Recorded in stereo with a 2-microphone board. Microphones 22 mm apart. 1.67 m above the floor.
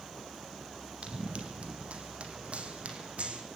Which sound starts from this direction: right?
Running footsteps, at 1.0 s.